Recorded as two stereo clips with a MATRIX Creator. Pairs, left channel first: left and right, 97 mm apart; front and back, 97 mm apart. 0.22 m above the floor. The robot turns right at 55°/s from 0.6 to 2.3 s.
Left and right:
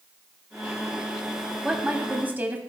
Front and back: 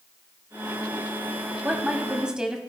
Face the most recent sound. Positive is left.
turn(degrees=-115)